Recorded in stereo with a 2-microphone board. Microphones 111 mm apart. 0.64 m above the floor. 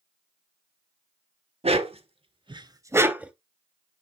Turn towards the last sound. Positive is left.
turn(degrees=-10)  # may be behind; listen again after turning